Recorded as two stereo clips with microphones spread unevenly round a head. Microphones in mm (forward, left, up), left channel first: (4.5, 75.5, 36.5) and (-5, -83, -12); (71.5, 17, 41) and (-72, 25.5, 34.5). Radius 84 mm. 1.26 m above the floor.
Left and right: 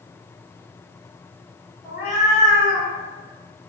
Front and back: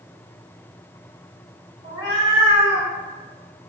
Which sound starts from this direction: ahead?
A cat meowing, at 1.8 s.